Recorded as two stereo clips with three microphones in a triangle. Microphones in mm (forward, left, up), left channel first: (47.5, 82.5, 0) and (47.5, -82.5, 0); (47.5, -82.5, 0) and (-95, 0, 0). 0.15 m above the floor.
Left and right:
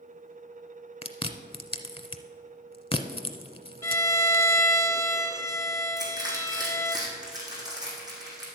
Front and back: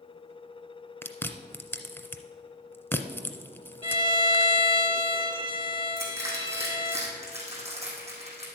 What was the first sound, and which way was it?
Chewing, 40° left.